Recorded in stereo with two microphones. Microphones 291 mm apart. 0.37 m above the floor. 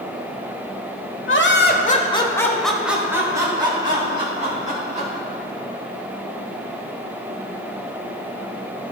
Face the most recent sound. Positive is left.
turn(degrees=-25)  # may be behind; listen again after turning